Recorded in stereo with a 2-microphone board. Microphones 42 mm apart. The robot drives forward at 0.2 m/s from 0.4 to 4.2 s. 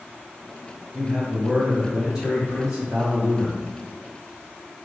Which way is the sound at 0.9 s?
20° right (ahead or behind).